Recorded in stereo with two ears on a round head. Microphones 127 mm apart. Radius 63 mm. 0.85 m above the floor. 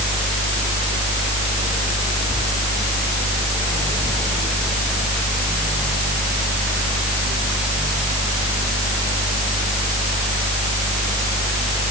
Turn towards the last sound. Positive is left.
No sound to turn to.